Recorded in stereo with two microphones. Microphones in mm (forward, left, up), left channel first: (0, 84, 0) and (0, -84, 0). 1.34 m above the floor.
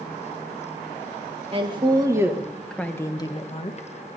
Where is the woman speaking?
35° right (ahead or behind), 1.7 m; by 3.9 s 45° left (ahead or behind), 1.6 m.